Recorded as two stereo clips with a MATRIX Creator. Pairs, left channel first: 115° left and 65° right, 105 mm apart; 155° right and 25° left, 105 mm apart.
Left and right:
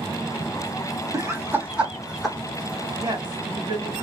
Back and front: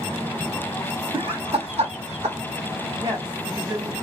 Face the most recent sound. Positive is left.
turn(degrees=-25)